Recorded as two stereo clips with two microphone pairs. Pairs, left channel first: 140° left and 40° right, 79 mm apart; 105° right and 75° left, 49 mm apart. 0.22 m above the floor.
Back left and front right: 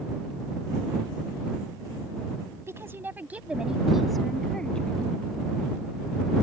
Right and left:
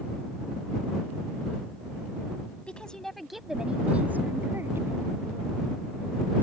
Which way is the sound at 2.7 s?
55° right.